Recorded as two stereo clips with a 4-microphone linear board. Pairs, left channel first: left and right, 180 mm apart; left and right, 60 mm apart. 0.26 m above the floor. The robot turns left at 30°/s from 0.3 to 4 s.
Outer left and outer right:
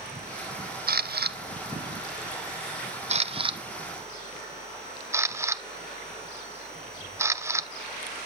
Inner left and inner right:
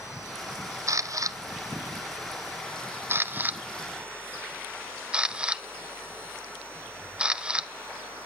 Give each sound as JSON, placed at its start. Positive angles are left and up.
{"t": 0.9, "sound": "a camera shutter", "side_deg": -55, "distance_m": 0.6}